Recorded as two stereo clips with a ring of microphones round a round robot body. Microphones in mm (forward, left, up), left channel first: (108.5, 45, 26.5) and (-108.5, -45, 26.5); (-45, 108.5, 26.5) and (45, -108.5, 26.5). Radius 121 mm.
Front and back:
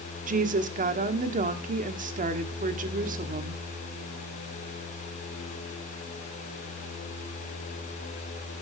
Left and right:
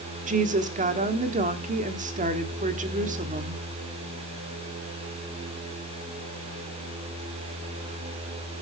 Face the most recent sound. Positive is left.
turn(degrees=-115)